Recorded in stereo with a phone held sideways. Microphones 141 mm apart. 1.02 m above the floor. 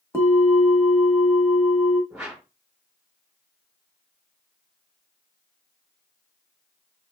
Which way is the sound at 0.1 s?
20° left (ahead or behind).